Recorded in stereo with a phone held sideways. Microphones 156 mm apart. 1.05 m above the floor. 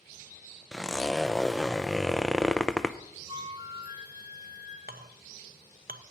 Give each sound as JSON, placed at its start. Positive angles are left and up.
{"t": 0.7, "sound": "a zipper", "side_deg": 5, "distance_m": 0.5}
{"t": 3.3, "sound": "a flute", "side_deg": -25, "distance_m": 1.7}
{"t": 4.9, "sound": "a clink", "side_deg": -75, "distance_m": 0.7}